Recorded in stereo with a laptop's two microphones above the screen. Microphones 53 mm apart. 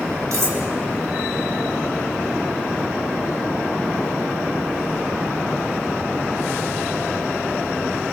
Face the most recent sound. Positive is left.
turn(degrees=-75)  # may be behind; listen again after turning